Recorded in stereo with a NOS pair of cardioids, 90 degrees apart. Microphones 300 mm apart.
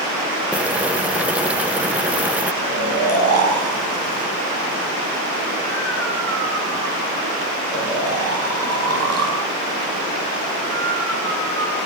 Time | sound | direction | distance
0.5 | boiling | 5° right | 1.2 m
2.6 | snoring | 50° right | 7.5 m